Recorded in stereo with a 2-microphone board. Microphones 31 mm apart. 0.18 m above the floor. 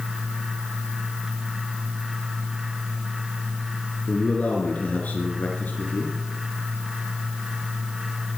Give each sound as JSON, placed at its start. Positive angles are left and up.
{"t": 4.1, "sound": "a man speaking", "side_deg": 45, "distance_m": 3.0}